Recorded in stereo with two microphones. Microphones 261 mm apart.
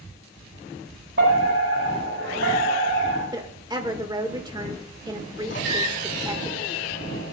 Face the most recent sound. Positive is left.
turn(degrees=45)  # may be behind; listen again after turning